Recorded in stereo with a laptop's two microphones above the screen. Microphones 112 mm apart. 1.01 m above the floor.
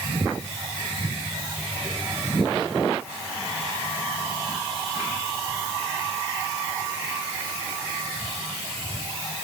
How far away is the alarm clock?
I don't hear an alarm clock.